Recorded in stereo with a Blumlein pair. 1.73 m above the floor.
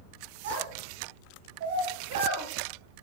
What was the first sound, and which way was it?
A child speaking, 55° right.